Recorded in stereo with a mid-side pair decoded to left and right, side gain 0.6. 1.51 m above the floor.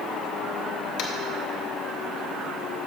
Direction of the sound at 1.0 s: 60° left.